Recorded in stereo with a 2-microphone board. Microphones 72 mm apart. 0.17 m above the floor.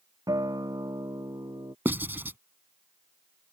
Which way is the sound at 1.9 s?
30° right (ahead or behind).